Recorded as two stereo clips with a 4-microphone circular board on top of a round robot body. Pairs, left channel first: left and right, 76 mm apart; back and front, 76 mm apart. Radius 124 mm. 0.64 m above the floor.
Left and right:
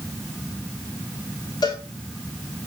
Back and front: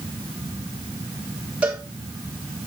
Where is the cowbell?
70° left, 3 m.